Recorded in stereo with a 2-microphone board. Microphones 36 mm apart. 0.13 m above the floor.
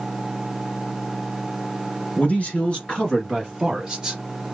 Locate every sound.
2.2 s a man speaking: 40° left (ahead or behind), 1.8 m; by 4.2 s 15° right (ahead or behind), 1.9 m